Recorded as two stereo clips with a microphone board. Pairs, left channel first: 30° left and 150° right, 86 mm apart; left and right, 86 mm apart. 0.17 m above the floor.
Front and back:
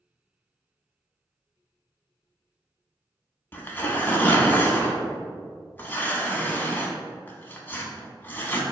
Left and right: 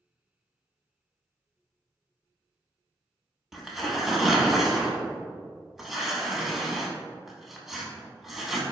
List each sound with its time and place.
3.5 s tearing paper: 5° right, 0.6 m